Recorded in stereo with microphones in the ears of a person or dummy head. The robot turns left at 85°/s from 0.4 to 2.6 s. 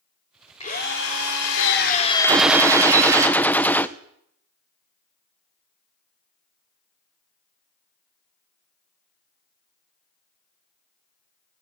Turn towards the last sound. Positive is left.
turn(degrees=5)  # may be behind; listen again after turning